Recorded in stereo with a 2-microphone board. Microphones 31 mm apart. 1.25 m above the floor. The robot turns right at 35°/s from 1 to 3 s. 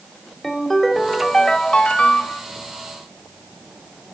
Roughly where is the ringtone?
Ahead.